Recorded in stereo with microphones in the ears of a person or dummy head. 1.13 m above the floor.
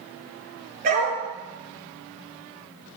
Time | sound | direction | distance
0.8 | a dog barking | 50° right (ahead or behind) | 8.5 m